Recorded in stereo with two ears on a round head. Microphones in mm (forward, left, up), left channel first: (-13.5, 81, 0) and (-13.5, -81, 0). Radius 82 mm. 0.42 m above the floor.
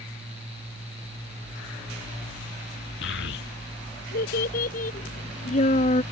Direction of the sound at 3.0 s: 75° left (ahead or behind).